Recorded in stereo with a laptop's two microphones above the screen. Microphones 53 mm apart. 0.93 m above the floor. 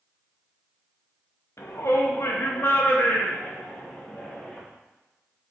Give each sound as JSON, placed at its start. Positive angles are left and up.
{"t": 1.6, "sound": "a shout", "side_deg": 65, "distance_m": 1.2}